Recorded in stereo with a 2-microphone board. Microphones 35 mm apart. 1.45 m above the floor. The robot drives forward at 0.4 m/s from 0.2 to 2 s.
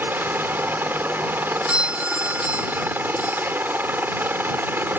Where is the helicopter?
75° right (ahead or behind).